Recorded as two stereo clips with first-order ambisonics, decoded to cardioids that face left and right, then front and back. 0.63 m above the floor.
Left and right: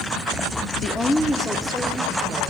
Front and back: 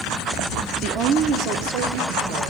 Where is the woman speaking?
140° left, 0.8 m; by 2.5 s 165° right, 2 m.